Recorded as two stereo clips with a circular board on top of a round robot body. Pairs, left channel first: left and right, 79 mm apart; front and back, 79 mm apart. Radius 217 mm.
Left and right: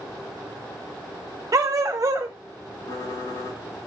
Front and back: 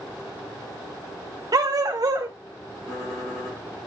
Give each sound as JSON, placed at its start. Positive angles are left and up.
{"t": 1.5, "sound": "a dog barking", "azimuth_deg": -140, "distance_m": 0.6}
{"t": 2.9, "sound": "typing on a keyboard", "azimuth_deg": 50, "distance_m": 5.5}